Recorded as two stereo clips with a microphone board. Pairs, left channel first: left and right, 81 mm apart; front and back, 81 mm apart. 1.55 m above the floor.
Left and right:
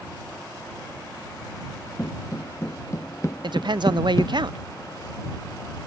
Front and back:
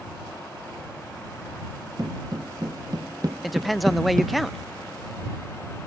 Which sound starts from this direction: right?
A woman speaking, at 3.4 s.